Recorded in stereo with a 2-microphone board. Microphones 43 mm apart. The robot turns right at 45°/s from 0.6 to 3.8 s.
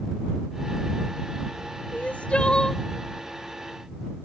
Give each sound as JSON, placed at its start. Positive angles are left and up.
{"t": 1.9, "sound": "crying", "azimuth_deg": 130}